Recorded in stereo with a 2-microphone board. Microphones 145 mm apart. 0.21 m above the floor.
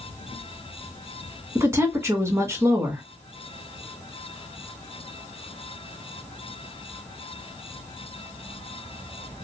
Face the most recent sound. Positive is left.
turn(degrees=-20)  # may be behind; listen again after turning